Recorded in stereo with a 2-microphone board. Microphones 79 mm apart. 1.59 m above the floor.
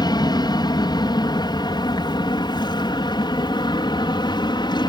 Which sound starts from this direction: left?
An aircraft, at 0.0 s.